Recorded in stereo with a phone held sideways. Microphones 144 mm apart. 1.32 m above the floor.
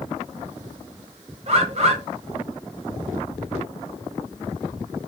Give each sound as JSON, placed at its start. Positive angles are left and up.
{"t": 1.5, "sound": "a bird", "side_deg": -45, "distance_m": 0.7}